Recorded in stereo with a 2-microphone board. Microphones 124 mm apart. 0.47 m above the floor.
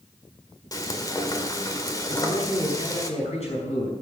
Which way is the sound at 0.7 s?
30° left (ahead or behind).